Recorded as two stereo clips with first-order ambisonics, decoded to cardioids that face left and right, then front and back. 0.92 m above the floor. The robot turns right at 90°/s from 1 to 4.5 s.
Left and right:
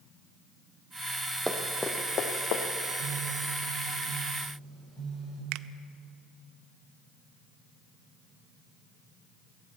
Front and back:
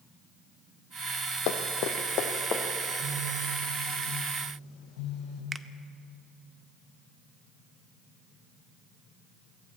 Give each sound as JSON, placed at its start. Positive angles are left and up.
{"t": 1.5, "sound": "running footsteps", "azimuth_deg": -10, "distance_m": 1.9}
{"t": 2.8, "sound": "a phone buzzing", "azimuth_deg": -150, "distance_m": 6.5}
{"t": 5.5, "sound": "a finger snap", "azimuth_deg": -105, "distance_m": 0.6}